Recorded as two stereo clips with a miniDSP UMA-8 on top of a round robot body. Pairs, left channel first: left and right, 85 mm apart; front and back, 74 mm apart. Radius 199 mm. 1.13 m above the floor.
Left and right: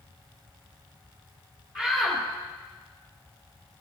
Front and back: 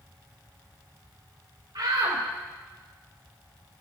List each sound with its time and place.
1.8 s a shout: 175° right, 3 m